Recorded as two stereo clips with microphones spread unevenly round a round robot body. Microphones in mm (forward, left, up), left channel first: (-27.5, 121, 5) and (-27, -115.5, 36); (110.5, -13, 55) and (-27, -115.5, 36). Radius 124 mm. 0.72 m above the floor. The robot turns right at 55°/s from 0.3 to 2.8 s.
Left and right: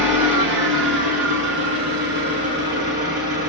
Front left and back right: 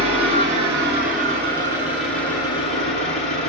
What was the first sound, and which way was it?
An engine running, 150° right.